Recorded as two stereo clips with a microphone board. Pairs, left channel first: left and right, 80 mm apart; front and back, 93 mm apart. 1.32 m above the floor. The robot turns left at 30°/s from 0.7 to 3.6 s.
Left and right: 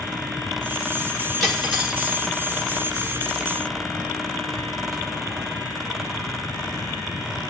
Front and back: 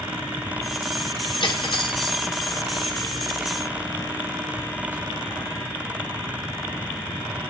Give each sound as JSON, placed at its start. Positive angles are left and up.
{"t": 1.4, "sound": "cutlery clinking", "azimuth_deg": 5, "distance_m": 1.1}